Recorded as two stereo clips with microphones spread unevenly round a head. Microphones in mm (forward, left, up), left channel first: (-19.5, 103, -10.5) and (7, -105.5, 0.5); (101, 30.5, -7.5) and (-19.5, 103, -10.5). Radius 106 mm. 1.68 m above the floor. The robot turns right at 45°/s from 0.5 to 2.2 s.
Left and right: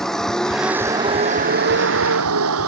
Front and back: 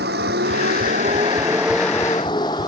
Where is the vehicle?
175° right; by 2.7 s 105° right.